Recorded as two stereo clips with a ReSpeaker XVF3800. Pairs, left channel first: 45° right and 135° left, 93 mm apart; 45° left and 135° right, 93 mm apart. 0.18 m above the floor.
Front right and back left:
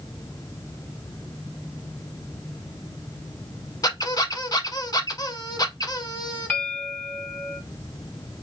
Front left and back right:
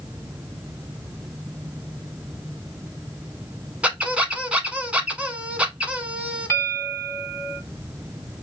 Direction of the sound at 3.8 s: 65° right.